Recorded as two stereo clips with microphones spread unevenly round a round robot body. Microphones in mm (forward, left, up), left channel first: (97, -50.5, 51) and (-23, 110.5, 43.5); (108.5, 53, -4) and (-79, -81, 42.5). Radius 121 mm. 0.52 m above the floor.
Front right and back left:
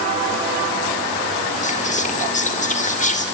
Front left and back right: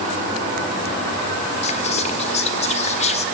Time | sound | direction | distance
1.6 | whispering | 10° right | 1.7 m